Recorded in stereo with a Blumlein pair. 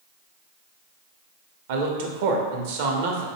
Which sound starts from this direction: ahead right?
A man speaking, at 1.7 s.